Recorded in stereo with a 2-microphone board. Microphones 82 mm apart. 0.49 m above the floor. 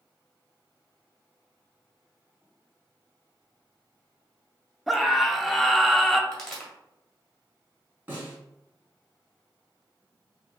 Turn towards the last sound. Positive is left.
turn(degrees=-25)  # may be behind; listen again after turning